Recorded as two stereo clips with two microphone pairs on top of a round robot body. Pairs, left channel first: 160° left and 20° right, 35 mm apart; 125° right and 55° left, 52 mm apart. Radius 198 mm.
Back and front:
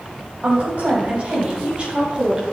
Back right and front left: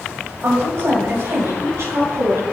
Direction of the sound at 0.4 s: 15° left.